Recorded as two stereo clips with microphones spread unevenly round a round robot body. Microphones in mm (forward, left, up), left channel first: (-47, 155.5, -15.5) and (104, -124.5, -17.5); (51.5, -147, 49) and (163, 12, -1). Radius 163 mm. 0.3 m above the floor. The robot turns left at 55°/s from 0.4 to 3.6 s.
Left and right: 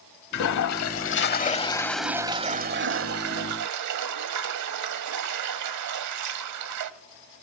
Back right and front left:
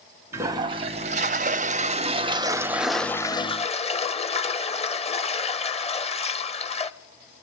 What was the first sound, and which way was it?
A toilet flushing, 115° left.